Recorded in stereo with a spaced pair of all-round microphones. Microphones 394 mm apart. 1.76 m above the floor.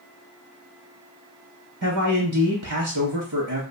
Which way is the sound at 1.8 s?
50° right (ahead or behind).